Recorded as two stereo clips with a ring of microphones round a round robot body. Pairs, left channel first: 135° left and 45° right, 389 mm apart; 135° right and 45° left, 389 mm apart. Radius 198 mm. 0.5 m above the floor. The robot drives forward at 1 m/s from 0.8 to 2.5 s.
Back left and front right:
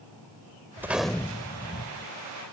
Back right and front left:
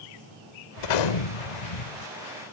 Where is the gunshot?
130° right; by 2.1 s 150° right.